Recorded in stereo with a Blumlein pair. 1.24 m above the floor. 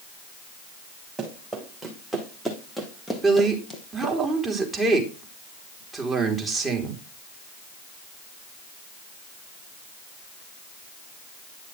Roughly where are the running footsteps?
Ahead.